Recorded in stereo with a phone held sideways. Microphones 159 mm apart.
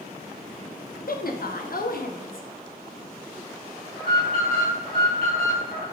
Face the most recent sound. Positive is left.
turn(degrees=70)  # may be behind; listen again after turning